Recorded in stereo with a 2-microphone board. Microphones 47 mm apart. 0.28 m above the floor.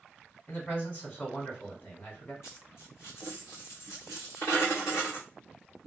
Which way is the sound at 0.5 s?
35° left (ahead or behind).